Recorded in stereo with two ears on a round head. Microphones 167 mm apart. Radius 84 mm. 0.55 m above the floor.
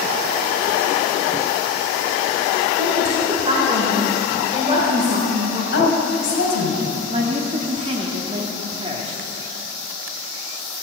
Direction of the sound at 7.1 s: 30° right (ahead or behind).